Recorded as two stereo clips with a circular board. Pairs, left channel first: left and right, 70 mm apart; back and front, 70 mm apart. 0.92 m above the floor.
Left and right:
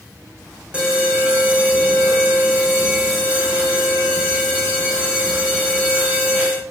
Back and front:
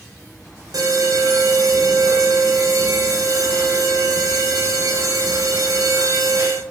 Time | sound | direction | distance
0.7 | an alarm | 15° right | 6 m